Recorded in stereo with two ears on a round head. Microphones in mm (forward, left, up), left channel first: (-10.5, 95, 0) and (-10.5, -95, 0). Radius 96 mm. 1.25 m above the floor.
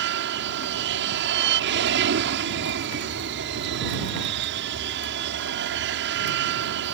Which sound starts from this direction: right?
An aircraft, at 0.0 s.